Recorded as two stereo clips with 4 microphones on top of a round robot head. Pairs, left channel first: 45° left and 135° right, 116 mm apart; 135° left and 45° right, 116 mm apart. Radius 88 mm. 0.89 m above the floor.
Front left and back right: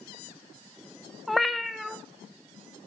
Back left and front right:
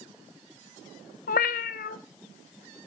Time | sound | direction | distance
1.3 | a cat meowing | 135° left | 0.5 m